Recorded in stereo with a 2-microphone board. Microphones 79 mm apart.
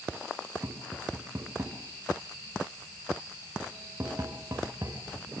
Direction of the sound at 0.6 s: 40° right (ahead or behind).